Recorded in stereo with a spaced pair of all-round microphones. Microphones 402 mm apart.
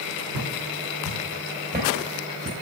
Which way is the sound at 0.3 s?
40° right (ahead or behind).